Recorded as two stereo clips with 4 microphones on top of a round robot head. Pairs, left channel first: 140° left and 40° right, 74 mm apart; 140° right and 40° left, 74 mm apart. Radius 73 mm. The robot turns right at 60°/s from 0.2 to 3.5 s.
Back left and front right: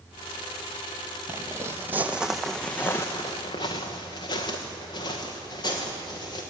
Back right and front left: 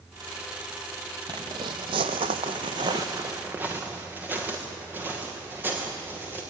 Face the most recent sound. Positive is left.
turn(degrees=105)